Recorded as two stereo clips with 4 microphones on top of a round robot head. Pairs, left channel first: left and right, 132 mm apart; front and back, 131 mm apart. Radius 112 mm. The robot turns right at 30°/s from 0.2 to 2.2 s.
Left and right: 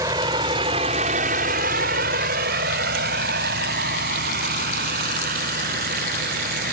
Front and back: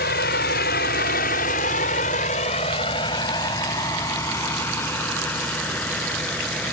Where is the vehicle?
15° right; by 6.7 s 85° right.